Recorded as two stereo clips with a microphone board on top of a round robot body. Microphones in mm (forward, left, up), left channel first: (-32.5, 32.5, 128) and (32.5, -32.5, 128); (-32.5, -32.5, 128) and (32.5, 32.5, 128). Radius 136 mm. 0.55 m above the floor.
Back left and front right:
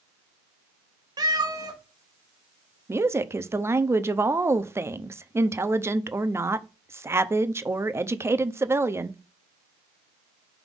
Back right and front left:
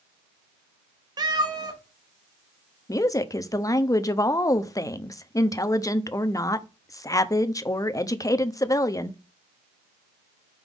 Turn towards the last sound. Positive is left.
turn(degrees=-100)